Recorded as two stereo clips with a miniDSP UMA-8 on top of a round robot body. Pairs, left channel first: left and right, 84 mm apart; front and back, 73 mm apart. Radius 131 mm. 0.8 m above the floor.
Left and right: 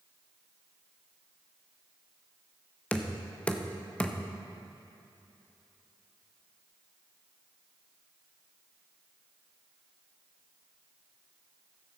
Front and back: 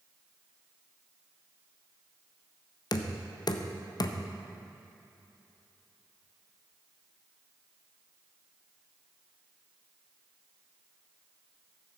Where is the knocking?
15° left, 0.8 m.